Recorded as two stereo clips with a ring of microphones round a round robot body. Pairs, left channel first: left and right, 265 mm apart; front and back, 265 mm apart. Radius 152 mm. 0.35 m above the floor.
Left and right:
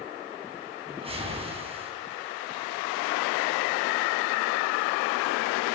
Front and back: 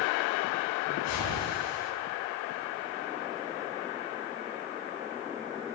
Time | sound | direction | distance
0.9 | a whoosh | 20° right | 4 m